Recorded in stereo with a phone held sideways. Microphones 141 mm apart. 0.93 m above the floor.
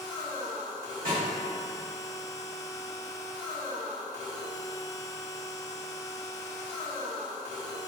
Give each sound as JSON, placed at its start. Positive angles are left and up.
{"t": 0.0, "sound": "a machine running", "side_deg": 25, "distance_m": 0.8}
{"t": 1.1, "sound": "a snare drum", "side_deg": -75, "distance_m": 1.9}